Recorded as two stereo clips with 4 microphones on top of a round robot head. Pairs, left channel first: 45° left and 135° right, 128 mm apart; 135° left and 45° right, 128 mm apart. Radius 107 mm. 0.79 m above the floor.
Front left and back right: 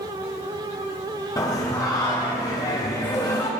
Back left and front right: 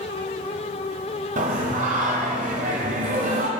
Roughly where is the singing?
Ahead.